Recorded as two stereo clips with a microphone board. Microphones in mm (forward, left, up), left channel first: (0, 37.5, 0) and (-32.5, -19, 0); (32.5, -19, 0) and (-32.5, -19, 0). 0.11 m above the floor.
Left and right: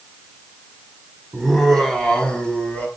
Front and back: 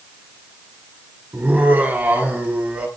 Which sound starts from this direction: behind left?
Laughter, at 1.3 s.